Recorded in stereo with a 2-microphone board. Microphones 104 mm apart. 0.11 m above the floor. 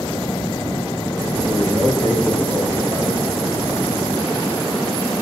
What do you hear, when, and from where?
1.5 s a man speaking: 20° left (ahead or behind), 2 m